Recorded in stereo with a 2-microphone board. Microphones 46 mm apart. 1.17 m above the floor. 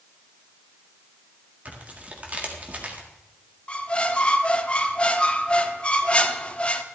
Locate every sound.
1.6 s tearing paper: 35° right (ahead or behind), 1.7 m
3.7 s a squeak: 25° left (ahead or behind), 0.8 m